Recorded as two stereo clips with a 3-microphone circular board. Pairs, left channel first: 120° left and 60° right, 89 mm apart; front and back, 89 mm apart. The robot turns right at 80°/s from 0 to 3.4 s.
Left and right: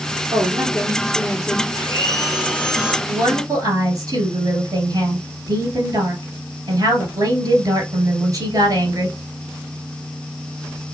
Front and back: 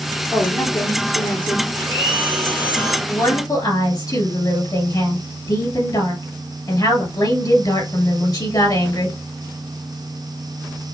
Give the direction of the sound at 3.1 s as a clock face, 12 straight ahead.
2 o'clock.